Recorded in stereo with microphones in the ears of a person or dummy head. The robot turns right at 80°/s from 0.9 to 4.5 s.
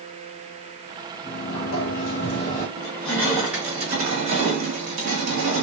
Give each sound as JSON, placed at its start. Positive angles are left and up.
{"t": 1.2, "sound": "a sliding door", "azimuth_deg": 50, "distance_m": 1.1}
{"t": 2.8, "sound": "crushing", "azimuth_deg": 115, "distance_m": 1.4}